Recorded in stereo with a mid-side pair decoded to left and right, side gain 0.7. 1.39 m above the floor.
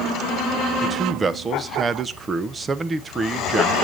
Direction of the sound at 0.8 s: 20° right.